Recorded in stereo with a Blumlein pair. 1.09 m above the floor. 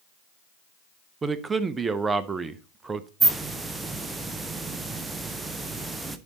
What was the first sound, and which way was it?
A man speaking, 15° right.